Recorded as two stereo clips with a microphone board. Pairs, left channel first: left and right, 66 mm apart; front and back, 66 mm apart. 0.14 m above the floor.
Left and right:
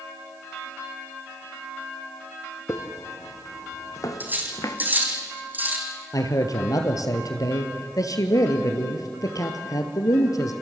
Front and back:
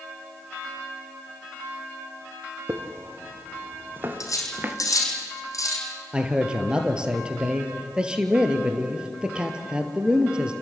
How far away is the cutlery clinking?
About 4 m.